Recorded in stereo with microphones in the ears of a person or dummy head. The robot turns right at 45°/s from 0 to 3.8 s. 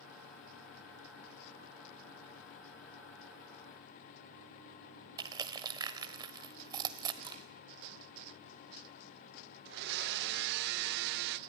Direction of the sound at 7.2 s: 30° right (ahead or behind).